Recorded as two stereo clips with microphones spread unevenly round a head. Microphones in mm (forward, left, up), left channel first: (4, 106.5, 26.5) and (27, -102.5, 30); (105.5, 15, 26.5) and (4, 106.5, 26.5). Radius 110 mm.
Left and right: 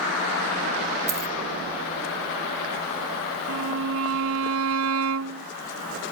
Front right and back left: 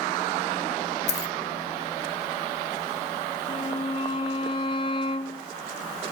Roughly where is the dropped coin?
Ahead.